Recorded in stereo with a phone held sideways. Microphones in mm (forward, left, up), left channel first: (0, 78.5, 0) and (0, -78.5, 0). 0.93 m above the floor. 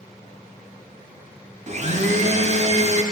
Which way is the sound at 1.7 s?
45° right (ahead or behind).